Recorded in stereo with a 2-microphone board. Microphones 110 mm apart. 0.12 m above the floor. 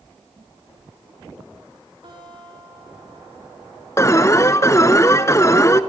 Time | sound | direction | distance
2.0 | a guitar | 50° right (ahead or behind) | 7.5 m
4.0 | an alarm | 25° left (ahead or behind) | 0.8 m